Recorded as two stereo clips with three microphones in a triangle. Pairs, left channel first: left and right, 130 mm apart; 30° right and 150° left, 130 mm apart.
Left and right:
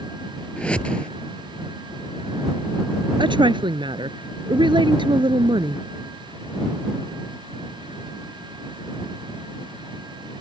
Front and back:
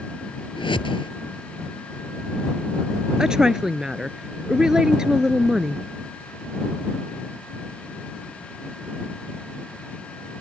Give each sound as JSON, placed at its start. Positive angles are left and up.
{"t": 0.6, "sound": "a whoosh", "azimuth_deg": 10}
{"t": 3.2, "sound": "a woman speaking", "azimuth_deg": -125}